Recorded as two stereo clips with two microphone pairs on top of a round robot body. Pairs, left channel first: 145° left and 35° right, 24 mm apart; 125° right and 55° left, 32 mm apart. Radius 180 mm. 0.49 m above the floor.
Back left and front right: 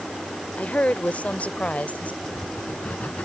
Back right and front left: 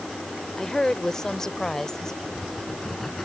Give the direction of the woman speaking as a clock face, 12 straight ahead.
7 o'clock.